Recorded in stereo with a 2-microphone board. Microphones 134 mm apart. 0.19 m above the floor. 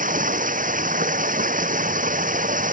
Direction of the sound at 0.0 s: 70° right (ahead or behind).